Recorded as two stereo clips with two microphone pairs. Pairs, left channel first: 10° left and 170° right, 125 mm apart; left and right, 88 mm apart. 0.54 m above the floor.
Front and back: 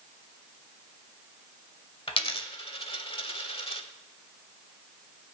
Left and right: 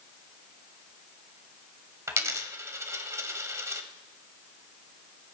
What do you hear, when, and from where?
2.1 s a dropped coin: 30° right, 1.1 m